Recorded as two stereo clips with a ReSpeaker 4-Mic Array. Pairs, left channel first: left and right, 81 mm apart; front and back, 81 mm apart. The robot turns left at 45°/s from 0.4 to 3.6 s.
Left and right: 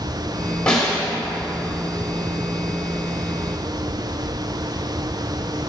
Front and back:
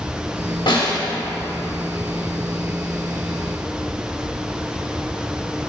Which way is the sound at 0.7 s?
10° left.